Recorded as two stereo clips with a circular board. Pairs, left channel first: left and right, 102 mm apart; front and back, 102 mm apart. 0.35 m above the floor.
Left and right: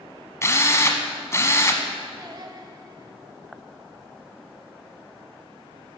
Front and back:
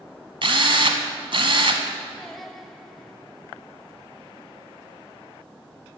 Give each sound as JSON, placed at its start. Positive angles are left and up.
{"t": 0.4, "sound": "a drill", "azimuth_deg": 150, "distance_m": 1.1}
{"t": 2.2, "sound": "singing", "azimuth_deg": -85, "distance_m": 1.0}